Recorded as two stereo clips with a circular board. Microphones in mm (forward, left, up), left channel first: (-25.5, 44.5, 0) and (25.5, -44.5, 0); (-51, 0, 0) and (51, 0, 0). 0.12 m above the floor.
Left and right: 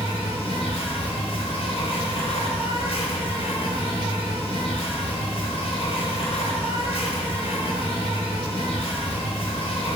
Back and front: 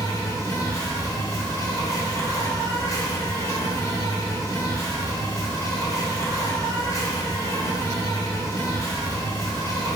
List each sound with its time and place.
0.0 s an insect: 120° left, 1.1 m